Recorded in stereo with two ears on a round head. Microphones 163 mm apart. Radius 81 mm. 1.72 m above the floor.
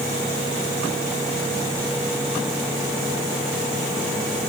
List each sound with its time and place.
Only background noise.